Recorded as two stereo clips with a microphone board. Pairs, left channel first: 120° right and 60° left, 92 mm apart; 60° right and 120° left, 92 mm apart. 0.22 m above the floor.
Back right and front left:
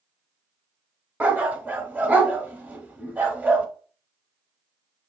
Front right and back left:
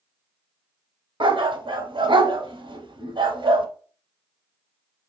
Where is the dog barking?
130° left, 0.7 m.